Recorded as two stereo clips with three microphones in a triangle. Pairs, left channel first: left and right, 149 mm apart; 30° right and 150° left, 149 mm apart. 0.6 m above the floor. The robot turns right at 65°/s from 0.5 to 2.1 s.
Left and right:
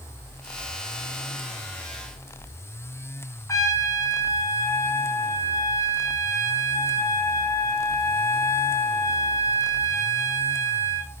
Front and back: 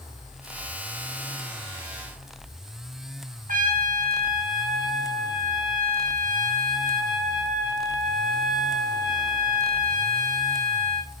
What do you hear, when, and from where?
3.5 s a trumpet: 155° left, 1.3 m